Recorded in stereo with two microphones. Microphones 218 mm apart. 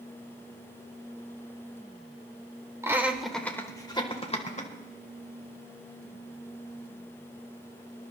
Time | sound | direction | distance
2.8 | laughter | 15° right (ahead or behind) | 1.1 m